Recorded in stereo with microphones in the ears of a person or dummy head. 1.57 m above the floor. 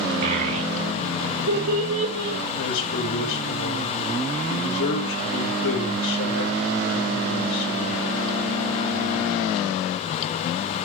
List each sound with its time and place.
0.2 s a child speaking: 55° right (ahead or behind), 0.9 m; by 2.4 s 75° right (ahead or behind), 2.5 m
2.6 s a man speaking: 70° left (ahead or behind), 5.5 m